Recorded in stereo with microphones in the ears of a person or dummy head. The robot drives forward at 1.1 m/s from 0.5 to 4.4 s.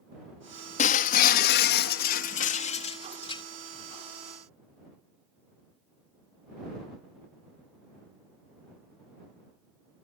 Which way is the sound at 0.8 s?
45° left (ahead or behind).